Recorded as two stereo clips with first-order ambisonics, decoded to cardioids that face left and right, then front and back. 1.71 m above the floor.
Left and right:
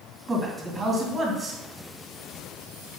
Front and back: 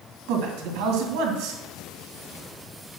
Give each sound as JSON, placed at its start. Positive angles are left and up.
{"t": 0.3, "sound": "a man speaking", "azimuth_deg": -170, "distance_m": 2.5}